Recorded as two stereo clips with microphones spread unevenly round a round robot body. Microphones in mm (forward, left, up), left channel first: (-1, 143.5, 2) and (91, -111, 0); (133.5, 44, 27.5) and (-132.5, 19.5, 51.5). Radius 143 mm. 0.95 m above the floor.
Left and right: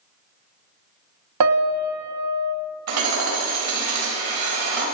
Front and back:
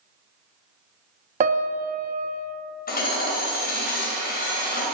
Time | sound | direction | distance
1.4 | a piano | 110° right | 0.7 m
2.9 | hammering | 55° right | 3 m